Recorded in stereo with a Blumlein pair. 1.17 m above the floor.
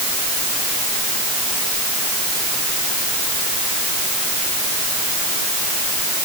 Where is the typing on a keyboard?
I don't hear typing on a keyboard.